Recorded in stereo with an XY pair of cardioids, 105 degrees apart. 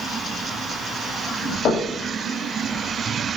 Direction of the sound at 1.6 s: 65° left.